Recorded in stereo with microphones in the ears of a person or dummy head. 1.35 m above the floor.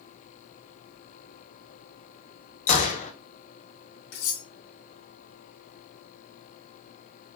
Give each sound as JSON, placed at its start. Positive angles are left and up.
{"t": 2.7, "sound": "a gunshot", "side_deg": 40, "distance_m": 0.8}
{"t": 4.1, "sound": "cutlery clinking", "side_deg": 75, "distance_m": 2.5}